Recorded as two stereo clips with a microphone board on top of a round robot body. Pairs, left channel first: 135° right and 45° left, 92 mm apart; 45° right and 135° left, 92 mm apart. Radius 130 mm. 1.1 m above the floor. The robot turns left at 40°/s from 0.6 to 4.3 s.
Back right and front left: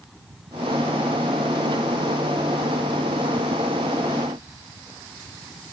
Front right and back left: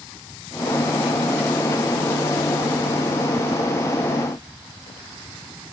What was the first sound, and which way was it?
Only background noise.